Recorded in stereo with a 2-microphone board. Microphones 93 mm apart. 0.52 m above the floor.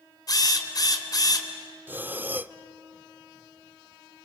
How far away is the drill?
About 3 m.